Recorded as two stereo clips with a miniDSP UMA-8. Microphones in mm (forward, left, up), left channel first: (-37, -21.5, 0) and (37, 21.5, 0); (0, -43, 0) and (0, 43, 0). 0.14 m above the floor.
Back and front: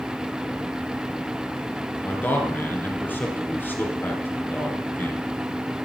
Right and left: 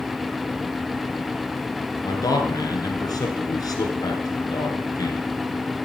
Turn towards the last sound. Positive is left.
turn(degrees=-90)